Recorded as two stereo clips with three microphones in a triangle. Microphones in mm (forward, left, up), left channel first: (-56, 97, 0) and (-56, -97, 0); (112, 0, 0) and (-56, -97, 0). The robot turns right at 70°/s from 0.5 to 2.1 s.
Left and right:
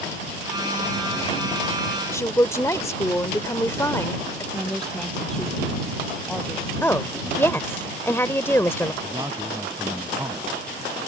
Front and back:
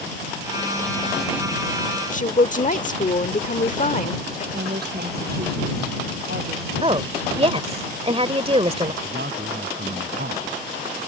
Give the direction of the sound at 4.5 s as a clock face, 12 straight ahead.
6 o'clock.